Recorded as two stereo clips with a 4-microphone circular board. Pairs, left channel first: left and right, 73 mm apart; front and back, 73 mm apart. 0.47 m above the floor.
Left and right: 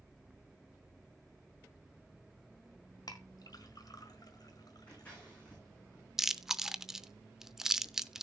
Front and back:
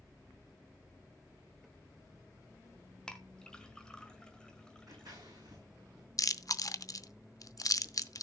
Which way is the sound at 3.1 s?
80° left.